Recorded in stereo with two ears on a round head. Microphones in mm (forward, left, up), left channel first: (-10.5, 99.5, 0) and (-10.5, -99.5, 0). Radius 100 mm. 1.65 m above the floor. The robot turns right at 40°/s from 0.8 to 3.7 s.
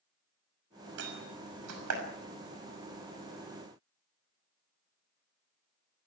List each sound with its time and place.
1.0 s a door slam: 60° right (ahead or behind), 6 m; by 2.0 s 75° right (ahead or behind), 6 m